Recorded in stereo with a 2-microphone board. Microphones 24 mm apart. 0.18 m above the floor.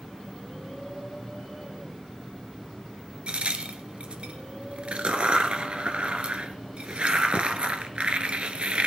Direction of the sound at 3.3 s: 65° right (ahead or behind).